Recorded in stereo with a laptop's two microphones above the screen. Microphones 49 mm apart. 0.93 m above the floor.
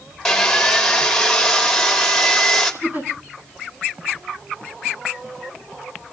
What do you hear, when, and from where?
0.2 s sawing: 10° left (ahead or behind), 2.5 m
2.8 s a giggle: 45° right (ahead or behind), 8 m